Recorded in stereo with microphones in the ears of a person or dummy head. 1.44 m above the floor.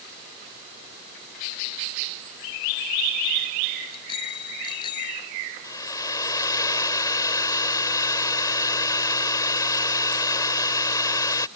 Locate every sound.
3.9 s a bicycle bell: 30° left (ahead or behind); by 5.2 s 25° left (ahead or behind)
5.6 s a hair dryer: 20° left (ahead or behind)